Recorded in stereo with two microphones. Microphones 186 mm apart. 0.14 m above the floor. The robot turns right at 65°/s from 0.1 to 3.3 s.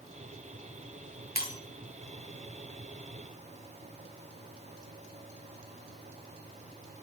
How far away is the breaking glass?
About 5.5 m.